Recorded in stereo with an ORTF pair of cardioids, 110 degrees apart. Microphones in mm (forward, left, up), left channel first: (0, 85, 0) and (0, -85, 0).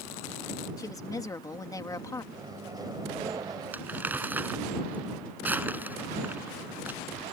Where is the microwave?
20° right.